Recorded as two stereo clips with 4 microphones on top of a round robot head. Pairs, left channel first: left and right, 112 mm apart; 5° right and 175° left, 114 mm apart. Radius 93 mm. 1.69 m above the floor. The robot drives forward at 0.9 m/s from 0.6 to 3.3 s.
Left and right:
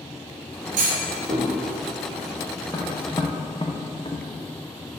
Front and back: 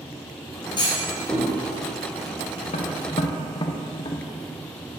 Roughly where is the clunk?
Ahead right.